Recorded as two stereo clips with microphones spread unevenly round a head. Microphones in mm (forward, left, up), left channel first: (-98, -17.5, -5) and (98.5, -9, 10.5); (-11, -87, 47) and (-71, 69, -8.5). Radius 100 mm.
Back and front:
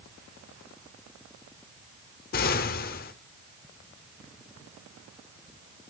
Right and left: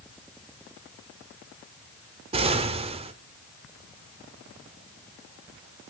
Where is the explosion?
175° left, 0.8 m.